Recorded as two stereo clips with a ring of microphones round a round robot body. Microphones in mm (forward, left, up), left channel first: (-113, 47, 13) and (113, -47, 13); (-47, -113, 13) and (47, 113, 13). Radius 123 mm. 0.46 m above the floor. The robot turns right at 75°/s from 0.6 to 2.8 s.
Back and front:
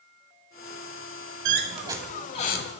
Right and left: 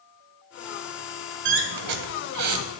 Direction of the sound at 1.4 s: 20° left.